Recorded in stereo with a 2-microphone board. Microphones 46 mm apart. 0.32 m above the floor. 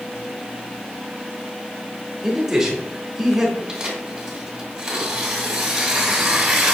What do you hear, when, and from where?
2.2 s a man speaking: 10° right (ahead or behind), 0.9 m
3.7 s tearing paper: 15° right (ahead or behind), 1.4 m